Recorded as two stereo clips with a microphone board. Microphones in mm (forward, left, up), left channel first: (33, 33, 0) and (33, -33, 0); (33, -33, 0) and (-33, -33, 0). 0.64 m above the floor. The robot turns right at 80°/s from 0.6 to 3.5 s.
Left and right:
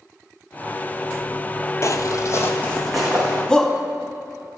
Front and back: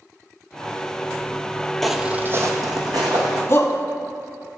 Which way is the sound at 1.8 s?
80° left.